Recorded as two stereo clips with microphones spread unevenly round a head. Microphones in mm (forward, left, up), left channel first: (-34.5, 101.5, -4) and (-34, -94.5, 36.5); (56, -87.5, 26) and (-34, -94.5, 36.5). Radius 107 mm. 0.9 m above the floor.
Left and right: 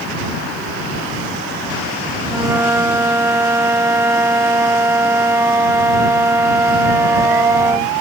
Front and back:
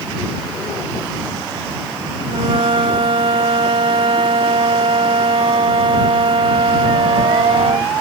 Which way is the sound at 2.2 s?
165° right.